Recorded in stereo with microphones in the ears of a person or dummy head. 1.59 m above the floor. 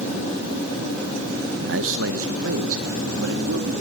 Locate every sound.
1.7 s a man speaking: 70° right (ahead or behind), 1.2 m; by 3.7 s 80° right, 2.5 m